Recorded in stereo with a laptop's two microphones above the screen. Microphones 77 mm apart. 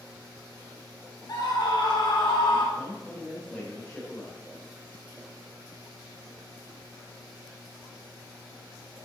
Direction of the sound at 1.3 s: 60° left (ahead or behind).